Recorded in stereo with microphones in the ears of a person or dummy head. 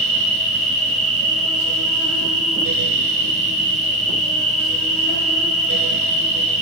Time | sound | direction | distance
0.0 | an insect | centre (ahead or behind) | 5 m